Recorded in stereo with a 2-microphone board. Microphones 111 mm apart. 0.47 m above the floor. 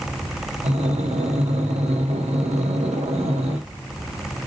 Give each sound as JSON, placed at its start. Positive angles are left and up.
{"t": 0.6, "sound": "breathing", "side_deg": -90, "distance_m": 0.6}